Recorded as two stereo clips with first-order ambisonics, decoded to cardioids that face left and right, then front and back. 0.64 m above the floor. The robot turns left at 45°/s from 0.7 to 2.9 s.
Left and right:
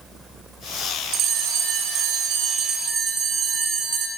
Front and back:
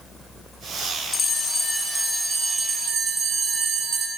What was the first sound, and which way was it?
A bell, 65° right.